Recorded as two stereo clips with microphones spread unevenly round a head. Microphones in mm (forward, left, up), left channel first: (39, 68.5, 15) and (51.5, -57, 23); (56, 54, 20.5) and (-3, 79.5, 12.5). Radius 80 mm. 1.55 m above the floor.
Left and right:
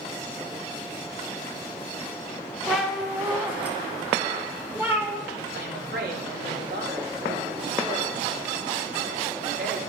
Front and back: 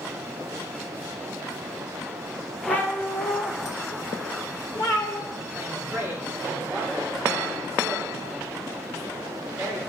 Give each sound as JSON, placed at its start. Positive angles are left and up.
{"t": 2.7, "sound": "a cat meowing", "azimuth_deg": 0, "distance_m": 0.9}
{"t": 5.5, "sound": "a woman speaking", "azimuth_deg": -120, "distance_m": 1.7}